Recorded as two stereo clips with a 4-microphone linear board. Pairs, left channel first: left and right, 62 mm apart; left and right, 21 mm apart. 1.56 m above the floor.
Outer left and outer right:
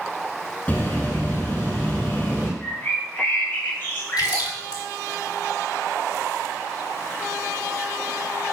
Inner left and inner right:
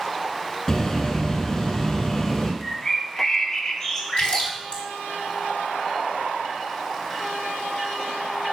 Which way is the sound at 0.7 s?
30° left (ahead or behind).